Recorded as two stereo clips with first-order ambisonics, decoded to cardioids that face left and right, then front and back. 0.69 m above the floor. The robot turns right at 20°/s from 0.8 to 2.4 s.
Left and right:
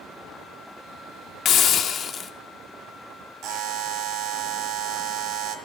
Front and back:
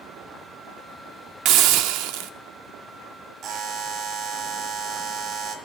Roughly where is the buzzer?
Behind right.